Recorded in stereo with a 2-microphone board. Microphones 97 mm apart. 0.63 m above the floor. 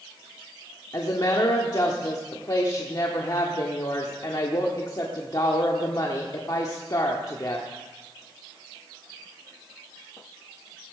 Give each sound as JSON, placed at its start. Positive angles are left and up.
{"t": 0.9, "sound": "a woman speaking", "side_deg": 45, "distance_m": 1.2}